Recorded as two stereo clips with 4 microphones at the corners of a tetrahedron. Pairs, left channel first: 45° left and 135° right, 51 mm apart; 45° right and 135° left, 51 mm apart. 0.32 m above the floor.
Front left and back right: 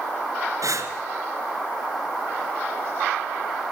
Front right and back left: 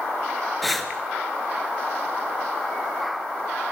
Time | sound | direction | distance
0.6 | breathing | 135° right | 1.7 m